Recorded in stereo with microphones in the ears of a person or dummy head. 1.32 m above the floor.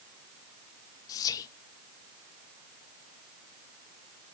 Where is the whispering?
20° left (ahead or behind), 1.0 m.